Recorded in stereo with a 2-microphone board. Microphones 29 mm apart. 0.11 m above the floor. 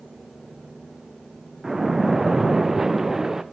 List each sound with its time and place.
1.6 s a splash: 15° right (ahead or behind), 1.6 m